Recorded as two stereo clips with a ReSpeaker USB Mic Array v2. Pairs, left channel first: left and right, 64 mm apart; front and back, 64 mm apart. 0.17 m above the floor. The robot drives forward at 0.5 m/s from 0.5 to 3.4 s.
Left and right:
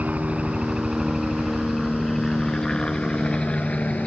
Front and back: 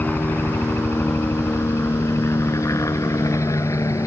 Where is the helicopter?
45° right; by 4.1 s 20° left.